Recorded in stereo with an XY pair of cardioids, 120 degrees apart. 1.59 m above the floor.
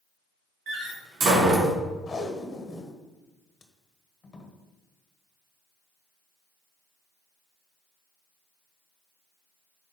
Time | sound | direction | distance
0.7 | a door slam | 50° right | 2.5 m
2.1 | tape being pulled | 30° left | 1.3 m